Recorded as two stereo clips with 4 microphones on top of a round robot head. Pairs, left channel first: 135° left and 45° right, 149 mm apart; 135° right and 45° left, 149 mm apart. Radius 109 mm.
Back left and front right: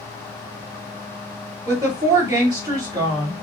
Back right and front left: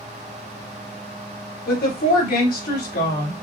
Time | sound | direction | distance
1.7 | a woman speaking | 115° right | 2.5 m